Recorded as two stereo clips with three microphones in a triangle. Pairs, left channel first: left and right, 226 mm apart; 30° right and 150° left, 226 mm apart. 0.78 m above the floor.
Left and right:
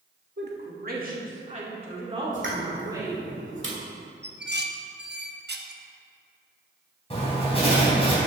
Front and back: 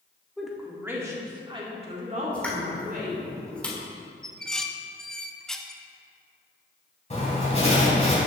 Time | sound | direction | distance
0.4 | a woman speaking | 120° right | 1.6 m
2.3 | a pop | 115° right | 1.5 m
4.2 | dishes clattering | 115° right | 0.6 m
7.1 | writing | 30° left | 3 m